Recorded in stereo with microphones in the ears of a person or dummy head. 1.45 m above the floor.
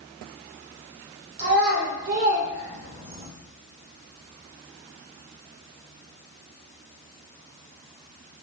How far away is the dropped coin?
No dropped coin in this recording.